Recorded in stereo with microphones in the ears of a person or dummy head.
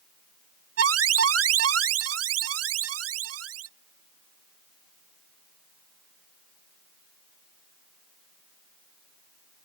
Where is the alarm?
75° right (ahead or behind).